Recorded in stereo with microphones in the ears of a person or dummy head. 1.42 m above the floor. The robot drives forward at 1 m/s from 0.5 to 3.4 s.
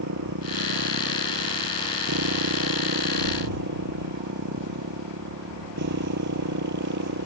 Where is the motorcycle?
70° right (ahead or behind); by 7.3 s 60° right (ahead or behind).